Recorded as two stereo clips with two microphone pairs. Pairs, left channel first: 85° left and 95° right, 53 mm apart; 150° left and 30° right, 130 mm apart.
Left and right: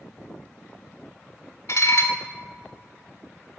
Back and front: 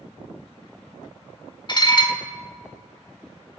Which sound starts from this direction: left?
Dishes clattering, at 1.7 s.